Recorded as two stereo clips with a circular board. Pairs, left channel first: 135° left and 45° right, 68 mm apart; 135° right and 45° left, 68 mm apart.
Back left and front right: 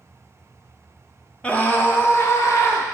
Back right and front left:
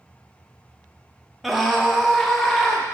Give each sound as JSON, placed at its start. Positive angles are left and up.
{"t": 1.4, "sound": "a scream", "azimuth_deg": 130, "distance_m": 0.9}